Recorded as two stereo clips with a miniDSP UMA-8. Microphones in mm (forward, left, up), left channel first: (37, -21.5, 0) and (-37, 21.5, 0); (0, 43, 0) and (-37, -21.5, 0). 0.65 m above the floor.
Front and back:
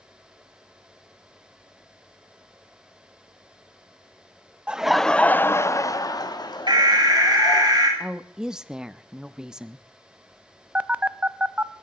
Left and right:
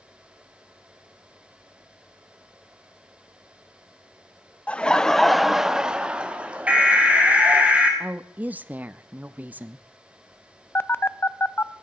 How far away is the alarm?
About 5 m.